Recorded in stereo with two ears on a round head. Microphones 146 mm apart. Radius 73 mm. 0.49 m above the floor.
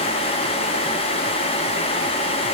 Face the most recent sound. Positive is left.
No sound to turn to.